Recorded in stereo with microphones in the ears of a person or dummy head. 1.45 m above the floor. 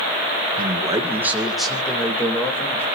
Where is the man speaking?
30° right (ahead or behind), 1.4 m; by 2.9 s 10° left (ahead or behind), 3 m.